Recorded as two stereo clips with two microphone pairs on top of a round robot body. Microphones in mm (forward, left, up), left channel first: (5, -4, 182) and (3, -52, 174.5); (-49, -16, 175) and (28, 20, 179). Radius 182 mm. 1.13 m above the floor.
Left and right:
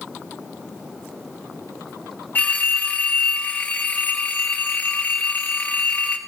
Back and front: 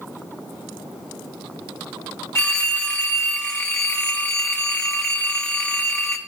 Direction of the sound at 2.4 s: 140° left.